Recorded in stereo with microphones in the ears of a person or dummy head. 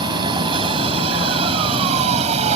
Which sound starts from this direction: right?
A vehicle, at 0.0 s.